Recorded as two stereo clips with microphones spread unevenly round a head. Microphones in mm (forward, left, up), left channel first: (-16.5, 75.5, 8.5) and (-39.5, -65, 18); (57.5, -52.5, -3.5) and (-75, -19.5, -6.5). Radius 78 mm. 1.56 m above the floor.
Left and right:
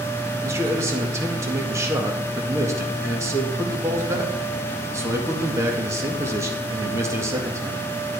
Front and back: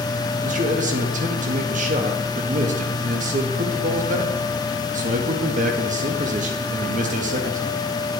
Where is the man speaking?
170° right, 1.9 m.